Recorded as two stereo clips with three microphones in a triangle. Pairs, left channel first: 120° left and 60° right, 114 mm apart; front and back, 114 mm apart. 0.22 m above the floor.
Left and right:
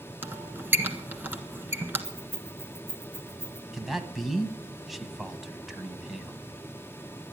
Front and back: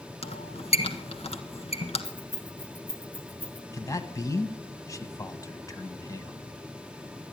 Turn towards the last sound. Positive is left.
turn(degrees=25)